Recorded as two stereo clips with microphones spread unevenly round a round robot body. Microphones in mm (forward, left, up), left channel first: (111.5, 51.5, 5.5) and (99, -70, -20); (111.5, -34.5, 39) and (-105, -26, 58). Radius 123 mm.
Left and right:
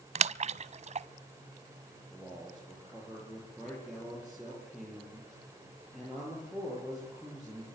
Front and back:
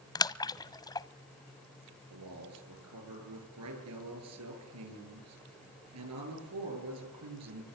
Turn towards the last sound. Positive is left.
turn(degrees=175)